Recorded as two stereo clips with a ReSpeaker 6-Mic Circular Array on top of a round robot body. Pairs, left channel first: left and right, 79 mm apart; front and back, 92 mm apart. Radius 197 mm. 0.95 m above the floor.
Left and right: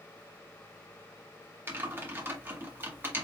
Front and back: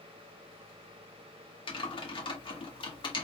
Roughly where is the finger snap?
I don't hear a finger snap.